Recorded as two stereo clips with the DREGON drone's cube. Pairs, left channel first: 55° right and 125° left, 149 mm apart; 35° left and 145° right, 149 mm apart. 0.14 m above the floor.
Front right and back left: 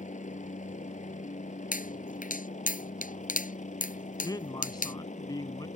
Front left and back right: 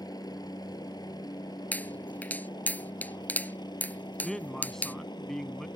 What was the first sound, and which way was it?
A helicopter, 30° right.